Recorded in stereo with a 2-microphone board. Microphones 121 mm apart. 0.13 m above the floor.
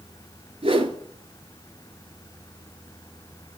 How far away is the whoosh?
About 0.6 m.